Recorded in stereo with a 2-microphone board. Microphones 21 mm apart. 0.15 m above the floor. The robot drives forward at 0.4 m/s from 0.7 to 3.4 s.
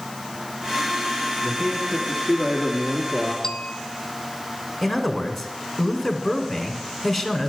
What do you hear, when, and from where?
1.4 s a man speaking: 15° right (ahead or behind), 1.6 m; by 3.3 s 10° right (ahead or behind), 2 m
3.4 s a bell: 20° left (ahead or behind), 0.9 m
4.8 s a man speaking: centre (ahead or behind), 1.3 m